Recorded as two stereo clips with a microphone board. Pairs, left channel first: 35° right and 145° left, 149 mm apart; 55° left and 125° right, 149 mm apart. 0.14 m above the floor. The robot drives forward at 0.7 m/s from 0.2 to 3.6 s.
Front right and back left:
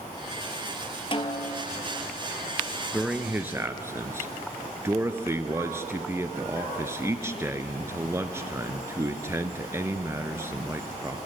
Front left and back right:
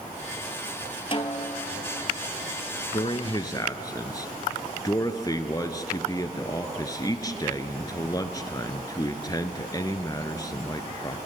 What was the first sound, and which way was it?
A snare drum, 10° left.